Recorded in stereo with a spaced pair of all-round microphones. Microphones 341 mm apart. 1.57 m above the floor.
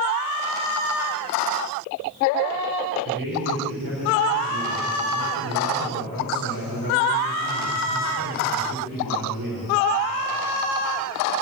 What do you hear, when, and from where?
3.0 s a man speaking: 80° right, 7 m; by 9.7 s 70° right (ahead or behind), 7.5 m